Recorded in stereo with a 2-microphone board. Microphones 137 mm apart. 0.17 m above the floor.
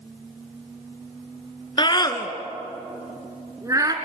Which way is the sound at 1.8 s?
35° left (ahead or behind).